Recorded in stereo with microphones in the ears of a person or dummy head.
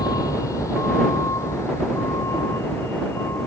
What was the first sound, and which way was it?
A vehicle, 20° left (ahead or behind).